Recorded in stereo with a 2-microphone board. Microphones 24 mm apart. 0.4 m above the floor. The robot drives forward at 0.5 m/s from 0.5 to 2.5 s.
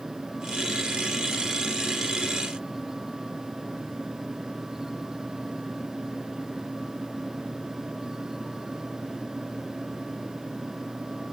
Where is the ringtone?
No ringtone in this recording.